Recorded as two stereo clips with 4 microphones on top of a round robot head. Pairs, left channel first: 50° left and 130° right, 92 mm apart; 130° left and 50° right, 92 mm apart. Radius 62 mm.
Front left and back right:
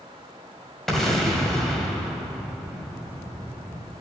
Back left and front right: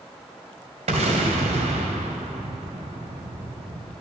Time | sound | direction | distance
0.9 | an explosion | 35° right | 1.7 m